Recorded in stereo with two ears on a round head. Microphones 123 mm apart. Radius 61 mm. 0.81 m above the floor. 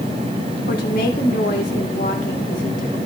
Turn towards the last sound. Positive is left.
turn(degrees=70)  # may be behind; listen again after turning